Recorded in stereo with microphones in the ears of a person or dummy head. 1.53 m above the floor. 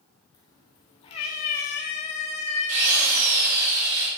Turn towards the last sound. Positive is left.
turn(degrees=-85)